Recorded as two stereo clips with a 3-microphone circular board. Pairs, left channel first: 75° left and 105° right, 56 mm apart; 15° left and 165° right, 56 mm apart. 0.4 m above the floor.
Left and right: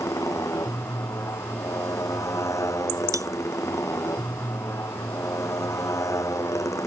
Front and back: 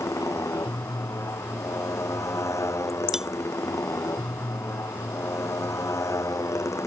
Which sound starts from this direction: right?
Cutlery clinking, at 3.1 s.